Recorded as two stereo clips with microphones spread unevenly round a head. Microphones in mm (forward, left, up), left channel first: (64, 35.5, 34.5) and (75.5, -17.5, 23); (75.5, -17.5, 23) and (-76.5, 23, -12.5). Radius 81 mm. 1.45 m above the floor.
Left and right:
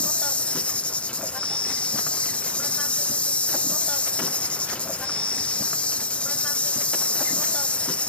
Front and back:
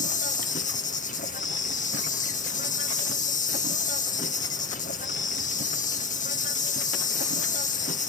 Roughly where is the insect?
Ahead left.